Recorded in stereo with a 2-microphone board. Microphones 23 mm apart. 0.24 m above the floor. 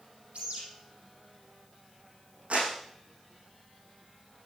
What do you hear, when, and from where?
0.3 s a bird: 75° right (ahead or behind), 6 m
2.5 s a clap: 80° right, 9 m